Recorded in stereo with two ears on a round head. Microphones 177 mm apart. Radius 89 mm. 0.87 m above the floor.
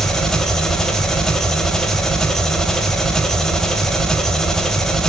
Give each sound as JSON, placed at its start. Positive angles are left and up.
{"t": 0.0, "sound": "an engine running", "side_deg": 0, "distance_m": 1.3}